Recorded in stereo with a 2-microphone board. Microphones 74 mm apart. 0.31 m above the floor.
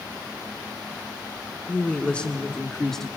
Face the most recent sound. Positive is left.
turn(degrees=5)  # may be behind; listen again after turning